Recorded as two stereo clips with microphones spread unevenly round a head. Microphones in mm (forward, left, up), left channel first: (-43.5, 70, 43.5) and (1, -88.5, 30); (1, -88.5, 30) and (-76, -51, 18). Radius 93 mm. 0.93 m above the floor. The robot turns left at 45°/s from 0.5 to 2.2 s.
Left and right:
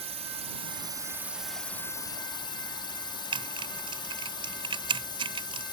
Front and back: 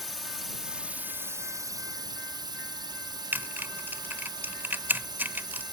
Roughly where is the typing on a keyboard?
Behind right.